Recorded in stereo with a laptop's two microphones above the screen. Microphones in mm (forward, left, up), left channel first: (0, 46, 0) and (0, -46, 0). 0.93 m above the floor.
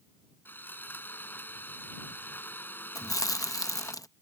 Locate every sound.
0.5 s sawing: 25° left (ahead or behind)
3.0 s chewing: 40° left (ahead or behind)